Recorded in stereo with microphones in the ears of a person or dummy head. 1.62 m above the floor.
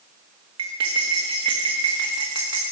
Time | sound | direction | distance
0.6 | cutlery clinking | 35° right (ahead or behind) | 1.3 m